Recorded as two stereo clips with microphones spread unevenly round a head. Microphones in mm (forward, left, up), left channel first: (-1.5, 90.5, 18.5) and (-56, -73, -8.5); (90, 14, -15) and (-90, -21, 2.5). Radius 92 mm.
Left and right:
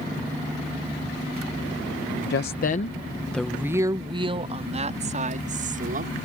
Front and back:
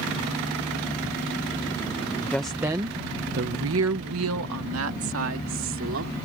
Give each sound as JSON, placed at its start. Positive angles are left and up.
{"t": 2.3, "sound": "a woman speaking", "azimuth_deg": 95}